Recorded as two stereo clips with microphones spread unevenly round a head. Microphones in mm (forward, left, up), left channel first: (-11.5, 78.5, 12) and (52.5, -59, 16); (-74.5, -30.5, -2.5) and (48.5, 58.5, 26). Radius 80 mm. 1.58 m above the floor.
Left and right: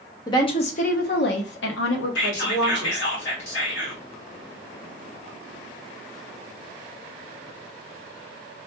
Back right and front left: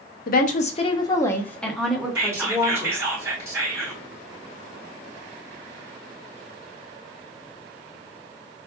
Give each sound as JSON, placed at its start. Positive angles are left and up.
{"t": 0.3, "sound": "a woman speaking", "azimuth_deg": -175, "distance_m": 0.7}
{"t": 2.1, "sound": "whispering", "azimuth_deg": 105, "distance_m": 1.8}